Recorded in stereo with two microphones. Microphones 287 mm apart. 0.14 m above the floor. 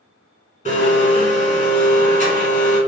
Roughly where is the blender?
Left.